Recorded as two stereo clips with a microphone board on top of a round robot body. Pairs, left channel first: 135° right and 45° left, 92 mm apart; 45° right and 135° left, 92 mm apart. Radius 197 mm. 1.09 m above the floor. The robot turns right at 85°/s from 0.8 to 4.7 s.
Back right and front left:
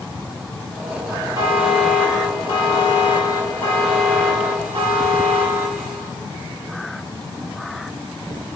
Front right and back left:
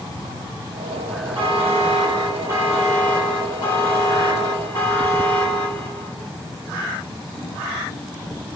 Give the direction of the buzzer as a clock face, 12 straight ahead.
9 o'clock.